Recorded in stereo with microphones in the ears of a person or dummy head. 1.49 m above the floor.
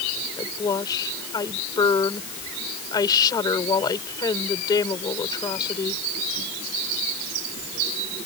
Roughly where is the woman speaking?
Centre.